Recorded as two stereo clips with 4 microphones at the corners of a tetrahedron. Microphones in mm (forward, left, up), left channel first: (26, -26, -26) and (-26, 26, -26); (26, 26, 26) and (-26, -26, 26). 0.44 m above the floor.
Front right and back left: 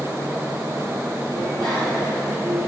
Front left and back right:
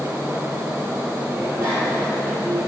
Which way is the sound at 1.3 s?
170° left.